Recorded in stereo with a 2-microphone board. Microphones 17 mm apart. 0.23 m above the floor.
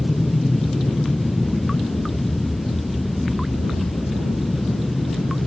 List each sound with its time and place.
0.0 s an aircraft: 50° left (ahead or behind); by 5.5 s 30° left (ahead or behind)